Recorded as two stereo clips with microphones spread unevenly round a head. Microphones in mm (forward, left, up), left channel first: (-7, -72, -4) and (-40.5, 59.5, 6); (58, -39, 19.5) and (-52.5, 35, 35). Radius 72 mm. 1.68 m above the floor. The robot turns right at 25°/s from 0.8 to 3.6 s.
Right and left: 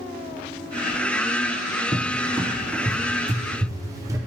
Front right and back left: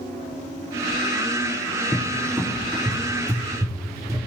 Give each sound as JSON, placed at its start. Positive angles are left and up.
{"t": 1.9, "sound": "a cupboard door", "azimuth_deg": 80, "distance_m": 0.6}